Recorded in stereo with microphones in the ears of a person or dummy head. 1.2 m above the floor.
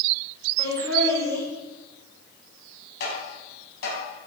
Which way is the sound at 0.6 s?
15° left (ahead or behind).